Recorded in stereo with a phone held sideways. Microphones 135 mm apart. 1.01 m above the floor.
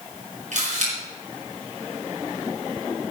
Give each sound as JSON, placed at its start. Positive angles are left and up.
{"t": 0.5, "sound": "a camera shutter", "side_deg": -60, "distance_m": 5.5}